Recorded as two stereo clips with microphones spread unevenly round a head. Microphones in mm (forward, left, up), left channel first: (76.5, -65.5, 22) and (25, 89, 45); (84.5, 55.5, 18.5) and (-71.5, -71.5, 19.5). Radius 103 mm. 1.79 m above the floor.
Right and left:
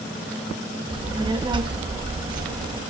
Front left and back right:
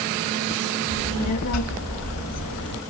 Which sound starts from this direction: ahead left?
A child speaking, at 0.9 s.